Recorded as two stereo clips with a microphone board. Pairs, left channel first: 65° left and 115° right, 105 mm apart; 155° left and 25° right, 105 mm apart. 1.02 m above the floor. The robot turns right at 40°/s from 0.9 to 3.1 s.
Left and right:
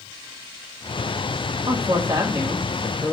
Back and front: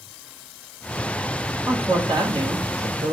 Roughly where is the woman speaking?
Right.